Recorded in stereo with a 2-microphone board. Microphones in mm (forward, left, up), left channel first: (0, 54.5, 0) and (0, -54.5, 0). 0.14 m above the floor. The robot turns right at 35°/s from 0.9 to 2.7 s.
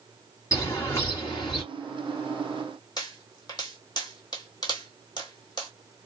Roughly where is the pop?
Left.